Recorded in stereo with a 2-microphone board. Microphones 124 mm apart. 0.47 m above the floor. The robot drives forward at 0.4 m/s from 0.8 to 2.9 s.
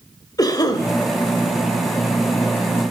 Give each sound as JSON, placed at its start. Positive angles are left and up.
{"t": 0.4, "sound": "a cough", "side_deg": 30, "distance_m": 1.8}